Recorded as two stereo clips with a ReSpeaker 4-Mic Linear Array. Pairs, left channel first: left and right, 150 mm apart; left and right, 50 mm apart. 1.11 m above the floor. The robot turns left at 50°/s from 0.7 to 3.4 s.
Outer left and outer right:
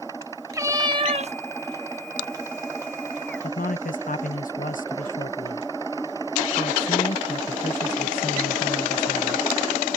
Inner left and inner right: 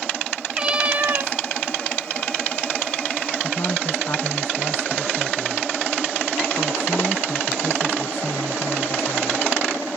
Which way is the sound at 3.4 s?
65° left (ahead or behind).